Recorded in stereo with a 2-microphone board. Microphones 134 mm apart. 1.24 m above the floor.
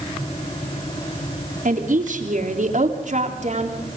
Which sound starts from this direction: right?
A woman speaking, at 1.6 s.